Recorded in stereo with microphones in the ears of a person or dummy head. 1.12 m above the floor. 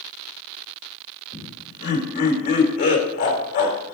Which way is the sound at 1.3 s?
50° left (ahead or behind).